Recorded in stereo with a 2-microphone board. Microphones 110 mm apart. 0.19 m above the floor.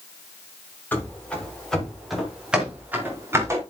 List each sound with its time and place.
0.9 s running footsteps: 15° left (ahead or behind), 6 m; by 3.6 s 25° right (ahead or behind), 5 m